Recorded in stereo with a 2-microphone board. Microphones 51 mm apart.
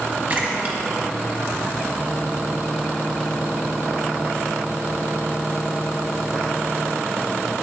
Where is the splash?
35° right (ahead or behind), 0.9 m.